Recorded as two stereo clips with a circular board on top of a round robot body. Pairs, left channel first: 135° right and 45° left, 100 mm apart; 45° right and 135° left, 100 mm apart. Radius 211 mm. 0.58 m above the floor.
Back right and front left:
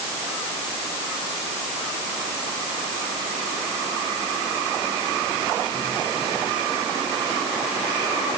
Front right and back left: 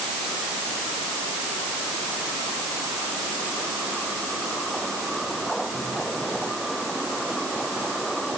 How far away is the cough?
I don't hear a cough.